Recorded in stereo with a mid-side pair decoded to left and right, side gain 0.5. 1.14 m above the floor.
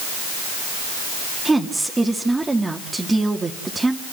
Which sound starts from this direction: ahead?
A woman speaking, at 1.4 s.